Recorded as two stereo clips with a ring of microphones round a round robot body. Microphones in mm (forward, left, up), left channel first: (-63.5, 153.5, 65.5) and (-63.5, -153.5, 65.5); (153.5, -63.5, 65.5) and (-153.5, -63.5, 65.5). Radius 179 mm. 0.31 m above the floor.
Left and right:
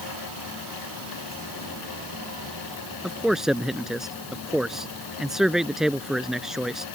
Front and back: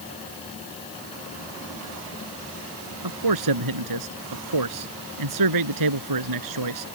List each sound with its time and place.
3.0 s a man speaking: straight behind